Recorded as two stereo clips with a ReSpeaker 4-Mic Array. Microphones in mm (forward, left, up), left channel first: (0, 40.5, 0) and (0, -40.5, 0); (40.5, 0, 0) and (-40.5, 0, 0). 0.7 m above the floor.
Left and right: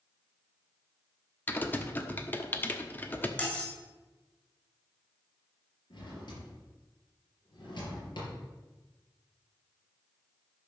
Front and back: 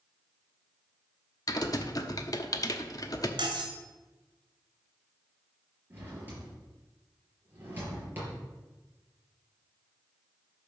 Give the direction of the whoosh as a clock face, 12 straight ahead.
No whoosh in this recording.